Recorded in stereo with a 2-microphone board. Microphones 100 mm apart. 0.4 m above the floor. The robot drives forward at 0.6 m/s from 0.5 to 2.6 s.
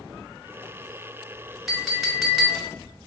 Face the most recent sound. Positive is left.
turn(degrees=-5)  # may be behind; listen again after turning